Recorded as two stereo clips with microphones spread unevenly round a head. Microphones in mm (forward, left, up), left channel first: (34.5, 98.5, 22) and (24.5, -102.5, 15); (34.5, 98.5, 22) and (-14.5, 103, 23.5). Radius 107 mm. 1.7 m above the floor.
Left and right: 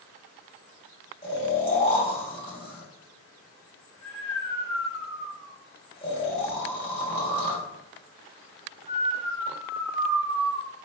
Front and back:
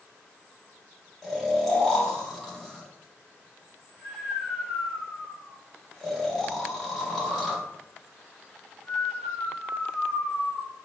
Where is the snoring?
75° left, 1.2 m.